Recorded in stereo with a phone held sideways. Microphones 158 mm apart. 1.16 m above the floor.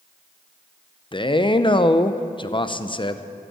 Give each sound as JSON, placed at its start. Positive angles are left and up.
{"t": 1.1, "sound": "a man speaking", "side_deg": 30, "distance_m": 0.5}